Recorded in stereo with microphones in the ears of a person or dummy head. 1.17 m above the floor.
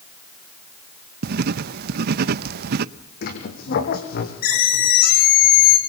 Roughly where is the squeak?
Left.